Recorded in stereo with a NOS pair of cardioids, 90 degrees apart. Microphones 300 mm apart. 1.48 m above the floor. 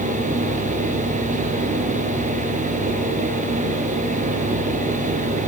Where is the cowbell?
No cowbell in this recording.